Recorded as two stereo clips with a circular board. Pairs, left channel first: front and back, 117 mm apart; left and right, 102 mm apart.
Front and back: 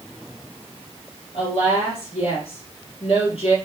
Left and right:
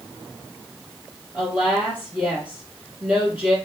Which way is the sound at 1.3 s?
15° right.